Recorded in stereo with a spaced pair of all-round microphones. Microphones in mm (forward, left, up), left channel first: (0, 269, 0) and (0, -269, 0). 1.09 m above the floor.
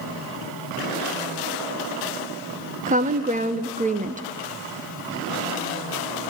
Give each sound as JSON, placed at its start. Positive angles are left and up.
{"t": 2.9, "sound": "a woman speaking", "side_deg": -15, "distance_m": 0.5}